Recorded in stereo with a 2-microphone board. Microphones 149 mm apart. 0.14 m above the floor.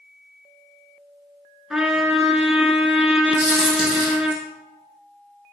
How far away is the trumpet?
About 0.8 m.